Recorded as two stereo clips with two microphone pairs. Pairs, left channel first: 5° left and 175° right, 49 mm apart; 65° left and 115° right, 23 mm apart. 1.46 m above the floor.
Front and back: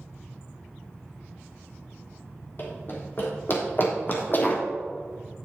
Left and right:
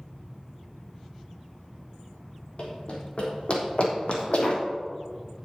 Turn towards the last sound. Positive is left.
turn(degrees=45)